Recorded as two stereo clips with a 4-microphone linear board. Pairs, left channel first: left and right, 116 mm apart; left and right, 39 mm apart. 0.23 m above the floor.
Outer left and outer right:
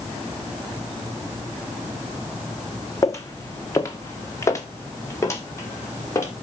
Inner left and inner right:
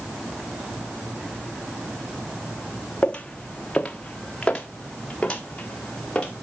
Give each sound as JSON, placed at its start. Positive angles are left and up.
{"t": 3.0, "sound": "footsteps", "side_deg": 25, "distance_m": 0.9}